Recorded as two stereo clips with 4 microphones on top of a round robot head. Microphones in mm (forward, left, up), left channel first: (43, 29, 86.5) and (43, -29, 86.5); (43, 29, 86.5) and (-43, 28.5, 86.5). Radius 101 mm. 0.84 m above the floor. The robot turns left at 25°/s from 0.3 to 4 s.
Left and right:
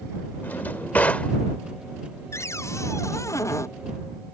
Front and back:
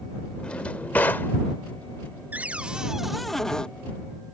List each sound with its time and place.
0.4 s a drawer: 70° left; by 1.3 s 45° left
2.3 s a cupboard door: 115° left; by 3.7 s 80° left